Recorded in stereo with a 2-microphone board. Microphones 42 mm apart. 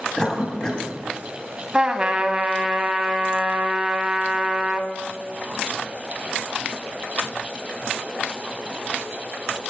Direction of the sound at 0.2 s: 20° left (ahead or behind).